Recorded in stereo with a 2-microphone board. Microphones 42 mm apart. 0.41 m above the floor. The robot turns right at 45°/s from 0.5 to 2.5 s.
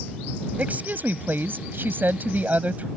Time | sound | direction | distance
0.6 | a woman speaking | 135° right | ?